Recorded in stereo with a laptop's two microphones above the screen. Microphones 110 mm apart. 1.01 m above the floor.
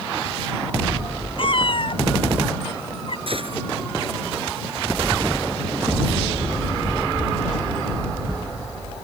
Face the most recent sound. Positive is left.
turn(degrees=-55)  # may be behind; listen again after turning